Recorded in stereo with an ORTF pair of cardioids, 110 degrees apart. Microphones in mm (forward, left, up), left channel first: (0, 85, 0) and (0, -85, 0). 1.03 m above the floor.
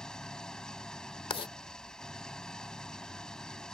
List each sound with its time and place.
0.0 s an engine running: 5° left
1.3 s writing: 35° left